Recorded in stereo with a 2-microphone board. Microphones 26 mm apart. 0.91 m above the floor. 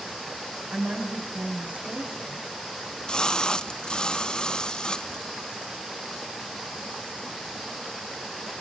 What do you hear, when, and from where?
0.7 s a woman speaking: 85° right, 5 m
2.8 s a splash: 30° left (ahead or behind), 0.5 m